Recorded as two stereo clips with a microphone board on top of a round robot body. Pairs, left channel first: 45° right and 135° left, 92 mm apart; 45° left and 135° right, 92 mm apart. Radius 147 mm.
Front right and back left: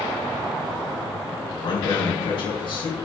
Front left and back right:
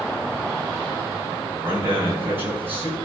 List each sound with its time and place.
1.6 s a man speaking: 70° right, 3.5 m